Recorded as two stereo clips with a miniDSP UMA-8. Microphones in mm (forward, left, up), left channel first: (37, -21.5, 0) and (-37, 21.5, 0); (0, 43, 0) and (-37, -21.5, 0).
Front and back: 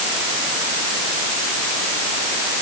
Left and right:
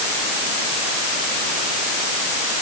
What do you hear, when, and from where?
Only background noise.